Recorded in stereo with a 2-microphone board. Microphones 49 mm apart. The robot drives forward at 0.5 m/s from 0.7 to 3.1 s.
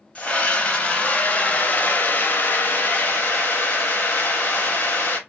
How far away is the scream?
About 1.2 m.